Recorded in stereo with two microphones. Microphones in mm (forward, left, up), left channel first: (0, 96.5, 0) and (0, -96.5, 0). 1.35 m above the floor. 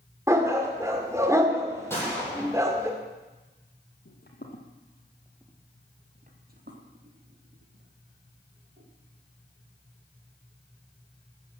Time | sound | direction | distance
0.3 | a dog barking | 15° right (ahead or behind) | 1.7 m
1.9 | a gunshot | 10° left (ahead or behind) | 8.5 m
4.0 | footsteps | 60° left (ahead or behind) | 2.5 m